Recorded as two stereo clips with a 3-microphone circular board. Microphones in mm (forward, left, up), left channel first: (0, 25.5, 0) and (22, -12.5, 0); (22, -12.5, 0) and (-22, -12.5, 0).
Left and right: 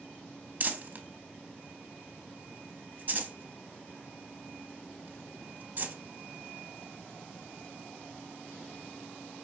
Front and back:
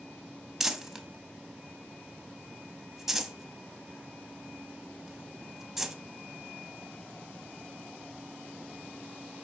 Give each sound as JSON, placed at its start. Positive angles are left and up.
{"t": 0.6, "sound": "crumpling", "azimuth_deg": -100, "distance_m": 0.5}